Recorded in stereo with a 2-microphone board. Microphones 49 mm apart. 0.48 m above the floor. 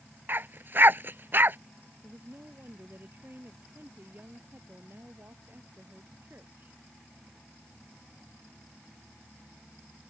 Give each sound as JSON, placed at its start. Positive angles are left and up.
{"t": 0.3, "sound": "a dog barking", "side_deg": -50}
{"t": 2.0, "sound": "a woman speaking", "side_deg": -50}